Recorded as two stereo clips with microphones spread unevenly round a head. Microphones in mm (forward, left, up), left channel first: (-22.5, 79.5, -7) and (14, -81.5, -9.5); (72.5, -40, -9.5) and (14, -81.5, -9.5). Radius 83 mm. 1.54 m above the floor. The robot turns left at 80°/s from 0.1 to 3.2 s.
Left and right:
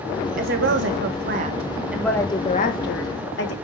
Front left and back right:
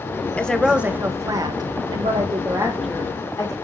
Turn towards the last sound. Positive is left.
turn(degrees=100)